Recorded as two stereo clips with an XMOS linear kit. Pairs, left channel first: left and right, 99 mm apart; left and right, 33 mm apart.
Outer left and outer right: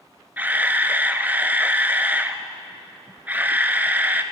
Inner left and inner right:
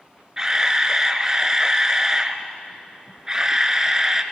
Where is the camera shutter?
20° right (ahead or behind), 0.7 m.